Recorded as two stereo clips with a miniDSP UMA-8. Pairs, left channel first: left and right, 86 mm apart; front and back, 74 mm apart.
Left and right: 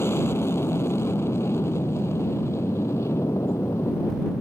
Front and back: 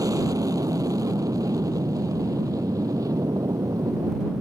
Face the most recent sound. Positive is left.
turn(degrees=145)